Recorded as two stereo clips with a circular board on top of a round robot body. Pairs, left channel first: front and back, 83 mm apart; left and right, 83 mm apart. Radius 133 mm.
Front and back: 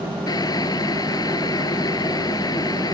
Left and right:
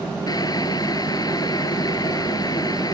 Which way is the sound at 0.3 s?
45° left.